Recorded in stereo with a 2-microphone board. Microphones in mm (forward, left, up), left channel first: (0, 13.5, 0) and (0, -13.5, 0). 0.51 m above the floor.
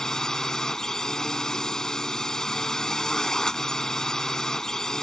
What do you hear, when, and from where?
0.0 s a drone: 25° left (ahead or behind)